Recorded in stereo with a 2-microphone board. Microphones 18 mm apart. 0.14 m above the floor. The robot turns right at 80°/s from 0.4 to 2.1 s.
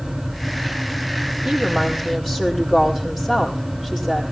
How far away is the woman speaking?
About 5.5 m.